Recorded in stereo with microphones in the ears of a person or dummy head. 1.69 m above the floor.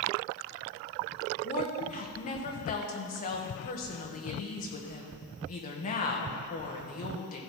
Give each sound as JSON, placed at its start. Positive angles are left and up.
{"t": 1.4, "sound": "a woman speaking", "side_deg": 40, "distance_m": 1.6}